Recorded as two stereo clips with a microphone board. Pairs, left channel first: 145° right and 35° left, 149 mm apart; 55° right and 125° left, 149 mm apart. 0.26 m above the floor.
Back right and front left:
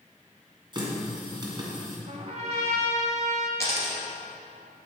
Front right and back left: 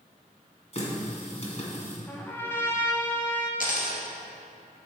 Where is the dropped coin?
75° right, 1.9 m.